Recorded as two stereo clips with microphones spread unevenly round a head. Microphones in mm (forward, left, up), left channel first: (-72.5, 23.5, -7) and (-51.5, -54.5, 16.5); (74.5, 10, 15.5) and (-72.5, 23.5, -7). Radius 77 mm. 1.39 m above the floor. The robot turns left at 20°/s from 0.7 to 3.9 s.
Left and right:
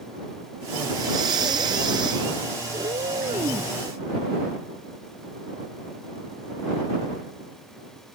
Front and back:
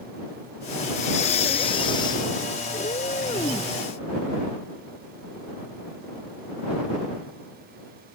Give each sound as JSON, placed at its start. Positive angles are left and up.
{"t": 0.9, "sound": "breathing", "azimuth_deg": -40}
{"t": 2.7, "sound": "a cat meowing", "azimuth_deg": -55}